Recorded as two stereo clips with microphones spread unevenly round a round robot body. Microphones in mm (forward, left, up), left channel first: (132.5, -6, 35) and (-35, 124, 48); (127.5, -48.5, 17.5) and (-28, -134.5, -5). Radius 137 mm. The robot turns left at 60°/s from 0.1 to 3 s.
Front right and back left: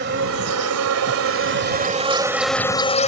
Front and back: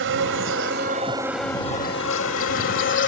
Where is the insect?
165° right; by 3.1 s 20° left.